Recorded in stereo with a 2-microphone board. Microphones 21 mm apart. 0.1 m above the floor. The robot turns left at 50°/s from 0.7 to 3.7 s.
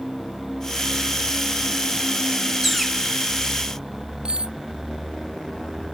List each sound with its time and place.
2.6 s a bird: 10° right (ahead or behind); by 3.0 s 10° left (ahead or behind)
4.2 s cutlery clinking: 50° right (ahead or behind)